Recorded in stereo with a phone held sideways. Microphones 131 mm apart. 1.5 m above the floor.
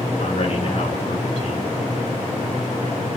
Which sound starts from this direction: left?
A man speaking, at 0.2 s.